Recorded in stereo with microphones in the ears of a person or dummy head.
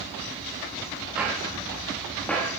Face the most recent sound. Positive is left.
turn(degrees=10)  # may be behind; listen again after turning